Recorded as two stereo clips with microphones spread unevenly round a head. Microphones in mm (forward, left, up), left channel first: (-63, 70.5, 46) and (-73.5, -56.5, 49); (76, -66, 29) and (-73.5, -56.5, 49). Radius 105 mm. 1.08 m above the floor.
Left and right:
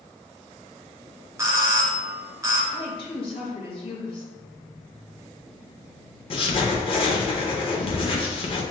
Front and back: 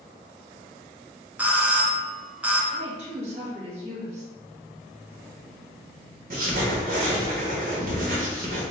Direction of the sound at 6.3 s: 130° left.